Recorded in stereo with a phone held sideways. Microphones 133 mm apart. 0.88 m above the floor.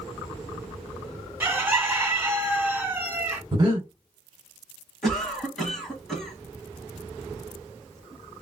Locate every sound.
1.4 s a bird: 15° right (ahead or behind), 1.1 m
3.5 s breathing: 35° right (ahead or behind), 1.3 m
5.0 s a cough: centre (ahead or behind), 1.2 m